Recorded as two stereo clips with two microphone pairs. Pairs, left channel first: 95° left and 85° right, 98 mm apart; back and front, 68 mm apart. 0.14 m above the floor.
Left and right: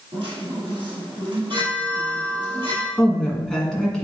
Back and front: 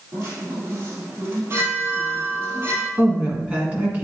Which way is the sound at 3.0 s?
20° left.